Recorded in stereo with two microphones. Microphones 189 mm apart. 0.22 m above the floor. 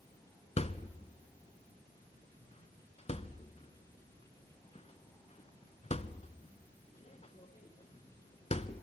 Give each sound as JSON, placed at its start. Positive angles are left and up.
{"t": 0.6, "sound": "a thud", "side_deg": 35, "distance_m": 0.7}